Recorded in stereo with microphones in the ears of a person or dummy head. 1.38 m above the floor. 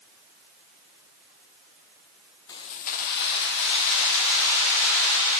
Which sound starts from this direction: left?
Keys jangling, at 2.5 s.